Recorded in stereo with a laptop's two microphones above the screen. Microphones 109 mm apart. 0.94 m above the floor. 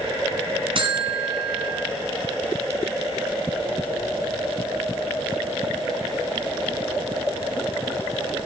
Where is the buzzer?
55° right (ahead or behind), 2.5 m.